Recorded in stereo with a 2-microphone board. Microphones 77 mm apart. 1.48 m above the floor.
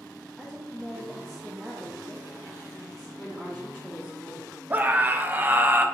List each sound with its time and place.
0.4 s a woman speaking: 5° right (ahead or behind), 0.8 m
3.2 s a woman speaking: 5° left (ahead or behind), 1.1 m
4.7 s a scream: 25° right (ahead or behind), 0.6 m